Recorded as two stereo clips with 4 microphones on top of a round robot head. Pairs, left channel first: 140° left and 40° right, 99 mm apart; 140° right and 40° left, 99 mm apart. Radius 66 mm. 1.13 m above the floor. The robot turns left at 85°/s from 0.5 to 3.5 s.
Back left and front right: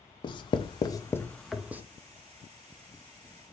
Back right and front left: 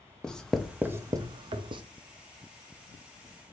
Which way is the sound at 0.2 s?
135° left.